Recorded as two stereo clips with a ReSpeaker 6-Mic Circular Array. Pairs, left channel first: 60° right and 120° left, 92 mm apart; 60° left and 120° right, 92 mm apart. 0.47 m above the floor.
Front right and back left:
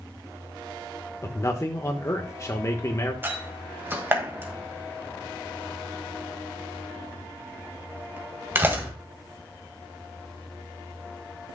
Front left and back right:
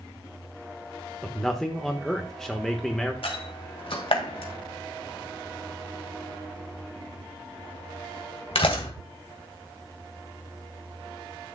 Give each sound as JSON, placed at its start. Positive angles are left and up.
{"t": 1.2, "sound": "a man speaking", "azimuth_deg": -20, "distance_m": 1.1}
{"t": 3.2, "sound": "a door slam", "azimuth_deg": 55, "distance_m": 1.8}